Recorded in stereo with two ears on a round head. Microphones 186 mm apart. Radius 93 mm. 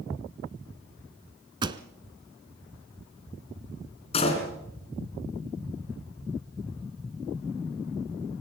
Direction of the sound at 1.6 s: 20° right (ahead or behind).